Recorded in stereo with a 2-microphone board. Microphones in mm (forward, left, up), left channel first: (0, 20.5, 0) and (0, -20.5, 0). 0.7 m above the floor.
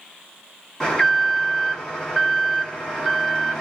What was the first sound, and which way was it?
An alarm, 10° left (ahead or behind).